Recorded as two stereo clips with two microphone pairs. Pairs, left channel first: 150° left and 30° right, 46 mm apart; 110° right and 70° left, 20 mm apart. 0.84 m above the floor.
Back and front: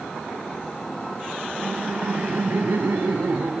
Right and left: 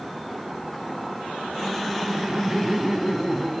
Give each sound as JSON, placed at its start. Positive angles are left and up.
{"t": 1.6, "sound": "laughter", "azimuth_deg": 0, "distance_m": 2.0}